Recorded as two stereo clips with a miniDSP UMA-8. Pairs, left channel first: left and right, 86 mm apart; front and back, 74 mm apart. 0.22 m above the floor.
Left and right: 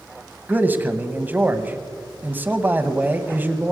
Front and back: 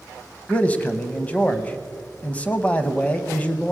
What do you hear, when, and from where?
0.5 s a man speaking: 45° right, 1.0 m